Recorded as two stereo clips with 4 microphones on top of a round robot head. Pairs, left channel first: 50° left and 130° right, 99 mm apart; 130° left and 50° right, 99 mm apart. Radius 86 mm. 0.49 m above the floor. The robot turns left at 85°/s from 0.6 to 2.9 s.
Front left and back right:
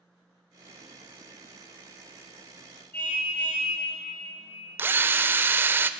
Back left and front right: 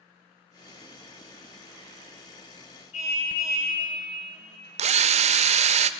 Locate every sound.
2.9 s a car horn: 125° left, 7 m
4.8 s a drill: 60° right, 0.5 m